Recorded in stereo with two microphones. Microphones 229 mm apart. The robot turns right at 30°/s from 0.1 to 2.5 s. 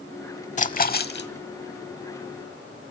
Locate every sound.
0.6 s a splash: 35° left (ahead or behind), 0.7 m; by 1.3 s 55° left (ahead or behind), 0.7 m